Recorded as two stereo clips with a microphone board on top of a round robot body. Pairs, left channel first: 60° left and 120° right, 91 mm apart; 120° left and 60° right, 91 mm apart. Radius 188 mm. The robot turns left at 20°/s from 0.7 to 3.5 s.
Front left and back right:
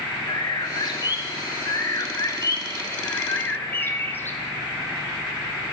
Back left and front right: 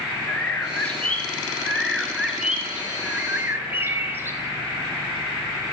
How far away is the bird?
About 0.7 m.